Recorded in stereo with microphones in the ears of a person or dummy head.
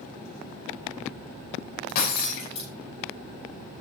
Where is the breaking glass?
55° left (ahead or behind), 5.5 m.